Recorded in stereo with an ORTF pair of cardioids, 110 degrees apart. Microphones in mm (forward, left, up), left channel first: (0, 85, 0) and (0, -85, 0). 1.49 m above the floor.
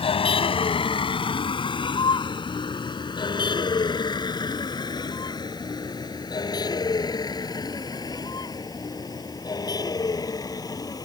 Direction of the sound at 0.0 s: 35° left.